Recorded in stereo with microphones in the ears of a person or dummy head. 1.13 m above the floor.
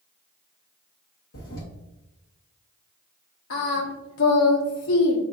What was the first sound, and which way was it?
A toilet flushing, 60° left (ahead or behind).